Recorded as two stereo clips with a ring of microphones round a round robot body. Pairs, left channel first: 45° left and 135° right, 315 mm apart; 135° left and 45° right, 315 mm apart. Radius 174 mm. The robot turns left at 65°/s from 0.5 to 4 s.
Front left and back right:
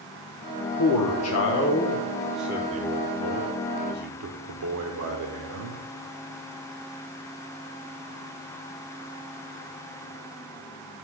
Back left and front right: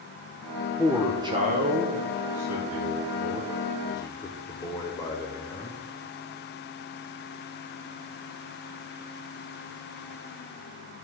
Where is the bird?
I don't hear a bird.